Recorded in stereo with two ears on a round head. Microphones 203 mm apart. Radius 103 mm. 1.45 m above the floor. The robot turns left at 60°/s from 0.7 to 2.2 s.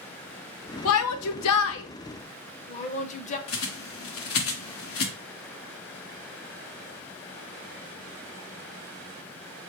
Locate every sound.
0.8 s a shout: 70° left (ahead or behind), 0.6 m; by 3.4 s 30° left (ahead or behind), 0.6 m
3.5 s a bird: 70° left (ahead or behind), 1.0 m